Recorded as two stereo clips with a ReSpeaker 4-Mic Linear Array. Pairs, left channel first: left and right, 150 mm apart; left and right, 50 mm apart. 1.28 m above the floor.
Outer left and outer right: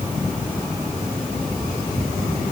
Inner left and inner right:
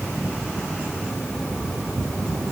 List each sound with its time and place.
Only background noise.